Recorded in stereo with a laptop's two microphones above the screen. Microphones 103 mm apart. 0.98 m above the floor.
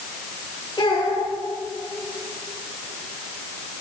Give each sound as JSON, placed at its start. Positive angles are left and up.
{"t": 0.8, "sound": "a child speaking", "side_deg": 45, "distance_m": 3.0}